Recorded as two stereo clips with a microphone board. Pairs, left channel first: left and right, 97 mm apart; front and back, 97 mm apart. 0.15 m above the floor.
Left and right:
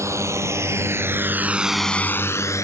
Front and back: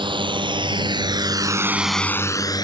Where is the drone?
150° right; by 2.6 s 40° left.